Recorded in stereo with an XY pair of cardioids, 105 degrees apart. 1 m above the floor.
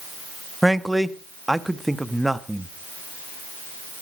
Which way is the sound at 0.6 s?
5° right.